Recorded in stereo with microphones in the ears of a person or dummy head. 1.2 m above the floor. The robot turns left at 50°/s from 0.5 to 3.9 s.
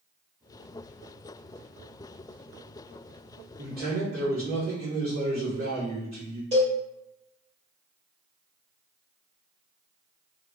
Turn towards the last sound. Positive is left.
turn(degrees=-30)  # may be behind; listen again after turning